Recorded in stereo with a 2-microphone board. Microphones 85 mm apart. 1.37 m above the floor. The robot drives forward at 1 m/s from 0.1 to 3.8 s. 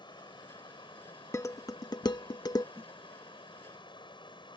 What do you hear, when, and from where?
0.0 s running water: 65° left (ahead or behind); by 4.6 s 75° left (ahead or behind)
1.3 s dishes clattering: 35° left (ahead or behind); by 2.6 s 45° left (ahead or behind)
2.8 s a snare drum: 25° right (ahead or behind)